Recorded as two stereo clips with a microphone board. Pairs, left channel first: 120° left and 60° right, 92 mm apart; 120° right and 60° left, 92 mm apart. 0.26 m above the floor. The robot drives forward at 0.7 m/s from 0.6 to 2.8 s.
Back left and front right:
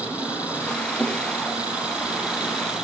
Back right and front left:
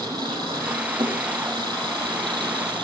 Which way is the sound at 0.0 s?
15° left.